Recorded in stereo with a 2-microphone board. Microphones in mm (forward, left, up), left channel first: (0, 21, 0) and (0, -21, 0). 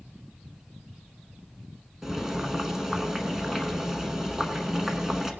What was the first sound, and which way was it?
Boiling, 10° right (ahead or behind).